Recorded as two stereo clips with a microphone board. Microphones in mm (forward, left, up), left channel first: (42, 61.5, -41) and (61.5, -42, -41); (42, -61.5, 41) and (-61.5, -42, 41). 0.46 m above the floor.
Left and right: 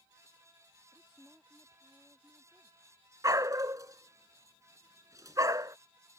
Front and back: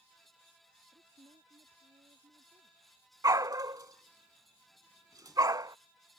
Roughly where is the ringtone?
I don't hear a ringtone.